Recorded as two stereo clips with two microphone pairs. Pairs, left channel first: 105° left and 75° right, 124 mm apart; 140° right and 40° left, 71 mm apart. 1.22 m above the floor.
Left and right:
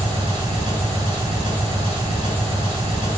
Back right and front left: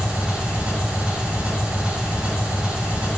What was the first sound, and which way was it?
An engine running, 35° right.